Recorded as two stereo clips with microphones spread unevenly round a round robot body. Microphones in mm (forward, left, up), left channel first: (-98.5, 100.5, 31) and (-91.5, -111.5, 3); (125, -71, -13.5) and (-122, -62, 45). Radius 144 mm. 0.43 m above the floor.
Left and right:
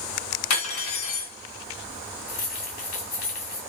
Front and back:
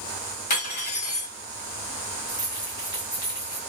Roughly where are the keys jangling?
Left.